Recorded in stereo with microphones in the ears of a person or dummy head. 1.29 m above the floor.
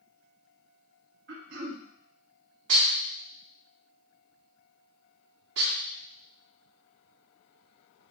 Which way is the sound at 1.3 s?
65° right (ahead or behind).